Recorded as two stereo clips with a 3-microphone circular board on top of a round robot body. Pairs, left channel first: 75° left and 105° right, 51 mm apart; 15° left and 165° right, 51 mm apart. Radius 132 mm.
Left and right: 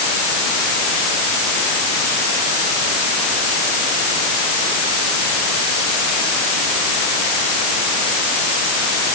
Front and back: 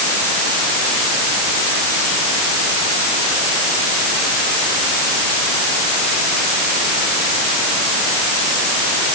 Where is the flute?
I don't hear a flute.